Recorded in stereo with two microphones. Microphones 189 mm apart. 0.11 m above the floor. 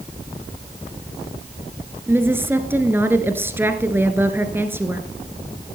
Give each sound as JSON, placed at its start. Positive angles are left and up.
{"t": 2.1, "sound": "a woman speaking", "side_deg": -10, "distance_m": 1.4}